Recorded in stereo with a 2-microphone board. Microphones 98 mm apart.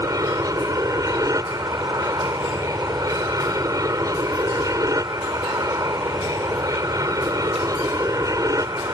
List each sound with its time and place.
0.0 s an aircraft: 35° right (ahead or behind)